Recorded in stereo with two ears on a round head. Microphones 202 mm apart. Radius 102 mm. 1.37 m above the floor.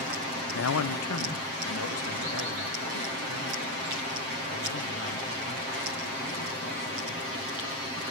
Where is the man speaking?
55° left (ahead or behind), 0.6 m; by 7.4 s 70° left (ahead or behind), 8 m.